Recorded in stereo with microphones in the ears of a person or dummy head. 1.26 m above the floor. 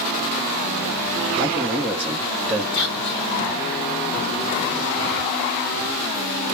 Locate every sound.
1.4 s a man speaking: 10° right (ahead or behind), 0.7 m
2.7 s whispering: 50° left (ahead or behind), 0.9 m